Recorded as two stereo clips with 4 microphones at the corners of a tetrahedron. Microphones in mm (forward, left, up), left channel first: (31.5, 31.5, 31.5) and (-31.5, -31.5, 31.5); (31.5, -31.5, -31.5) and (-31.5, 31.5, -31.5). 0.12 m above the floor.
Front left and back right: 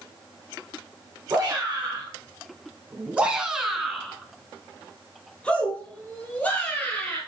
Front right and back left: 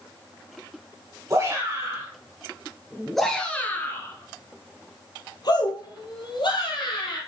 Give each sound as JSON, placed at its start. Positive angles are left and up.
{"t": 1.3, "sound": "a shout", "azimuth_deg": 170, "distance_m": 1.6}